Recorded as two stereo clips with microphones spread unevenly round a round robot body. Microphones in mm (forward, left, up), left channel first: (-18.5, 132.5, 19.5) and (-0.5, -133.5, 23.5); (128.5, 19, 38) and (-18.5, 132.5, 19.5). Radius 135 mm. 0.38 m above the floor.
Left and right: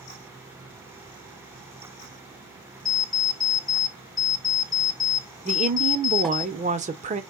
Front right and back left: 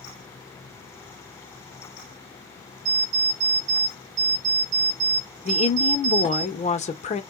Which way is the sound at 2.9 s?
Straight behind.